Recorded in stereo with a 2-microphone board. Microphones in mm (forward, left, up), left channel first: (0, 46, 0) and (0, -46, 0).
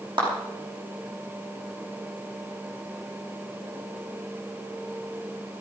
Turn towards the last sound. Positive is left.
turn(degrees=-65)  # may be behind; listen again after turning